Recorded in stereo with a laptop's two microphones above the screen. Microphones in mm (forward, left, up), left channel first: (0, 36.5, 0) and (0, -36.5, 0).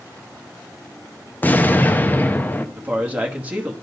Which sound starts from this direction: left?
An explosion, at 1.4 s.